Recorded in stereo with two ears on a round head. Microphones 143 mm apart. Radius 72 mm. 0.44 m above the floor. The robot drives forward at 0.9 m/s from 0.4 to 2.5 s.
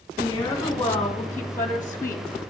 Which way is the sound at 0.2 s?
10° left (ahead or behind).